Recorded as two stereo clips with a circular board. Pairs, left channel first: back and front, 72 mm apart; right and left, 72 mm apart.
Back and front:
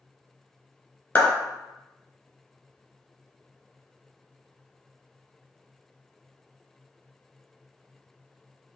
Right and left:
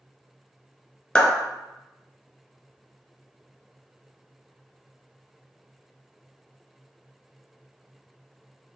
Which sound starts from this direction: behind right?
A clap, at 1.1 s.